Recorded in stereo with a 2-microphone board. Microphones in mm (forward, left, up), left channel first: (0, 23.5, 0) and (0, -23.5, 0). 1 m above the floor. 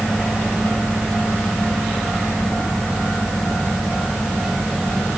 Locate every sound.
Only background noise.